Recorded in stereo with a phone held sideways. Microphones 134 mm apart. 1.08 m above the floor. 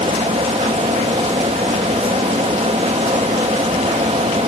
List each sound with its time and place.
0.0 s a fan: 50° right (ahead or behind), 0.9 m